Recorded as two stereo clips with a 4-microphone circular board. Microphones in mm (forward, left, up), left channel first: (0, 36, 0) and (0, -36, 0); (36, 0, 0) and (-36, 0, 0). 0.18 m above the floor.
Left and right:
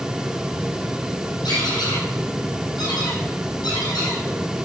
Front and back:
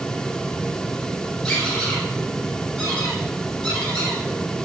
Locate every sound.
1.4 s a squeak: 80° left, 4.5 m